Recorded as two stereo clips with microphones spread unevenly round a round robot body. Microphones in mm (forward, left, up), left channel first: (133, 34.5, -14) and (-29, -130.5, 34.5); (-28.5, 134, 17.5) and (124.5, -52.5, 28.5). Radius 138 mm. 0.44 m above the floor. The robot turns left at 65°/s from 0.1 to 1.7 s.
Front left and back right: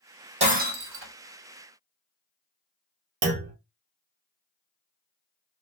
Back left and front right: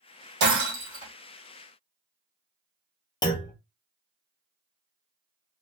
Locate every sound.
0.4 s breaking glass: 75° right, 2.0 m; by 1.1 s 120° right, 2.0 m
3.2 s a clunk: 170° right, 0.6 m